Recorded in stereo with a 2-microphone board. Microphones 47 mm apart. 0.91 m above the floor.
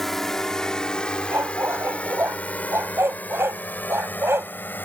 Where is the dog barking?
65° right (ahead or behind).